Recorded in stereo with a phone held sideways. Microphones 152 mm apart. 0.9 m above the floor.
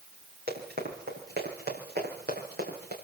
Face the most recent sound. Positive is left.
turn(degrees=-85)